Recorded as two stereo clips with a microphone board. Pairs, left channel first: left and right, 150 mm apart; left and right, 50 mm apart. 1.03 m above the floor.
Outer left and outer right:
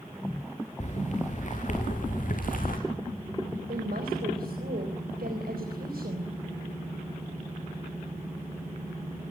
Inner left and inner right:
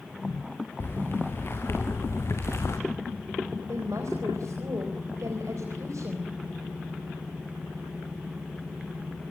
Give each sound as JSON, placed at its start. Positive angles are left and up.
{"t": 0.8, "sound": "footsteps", "side_deg": 50, "distance_m": 6.0}
{"t": 3.7, "sound": "a woman speaking", "side_deg": -85, "distance_m": 4.0}